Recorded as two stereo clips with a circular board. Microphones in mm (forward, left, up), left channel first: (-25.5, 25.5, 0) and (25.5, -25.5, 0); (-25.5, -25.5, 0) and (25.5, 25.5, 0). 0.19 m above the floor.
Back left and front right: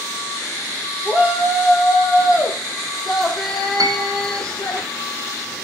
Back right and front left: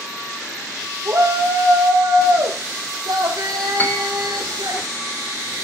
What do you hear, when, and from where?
1.1 s a shout: 20° left, 3.5 m; by 4.8 s 55° left, 7.5 m
3.8 s a piano: 70° right, 1.5 m